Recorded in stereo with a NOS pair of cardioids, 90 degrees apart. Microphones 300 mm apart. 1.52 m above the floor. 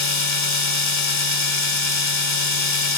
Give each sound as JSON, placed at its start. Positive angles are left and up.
{"t": 0.0, "sound": "a machine running", "azimuth_deg": 65, "distance_m": 4.0}